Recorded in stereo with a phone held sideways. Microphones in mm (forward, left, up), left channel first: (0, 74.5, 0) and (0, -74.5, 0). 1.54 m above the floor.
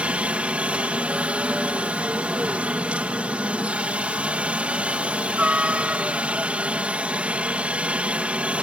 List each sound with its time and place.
0.0 s a helicopter: 10° right (ahead or behind)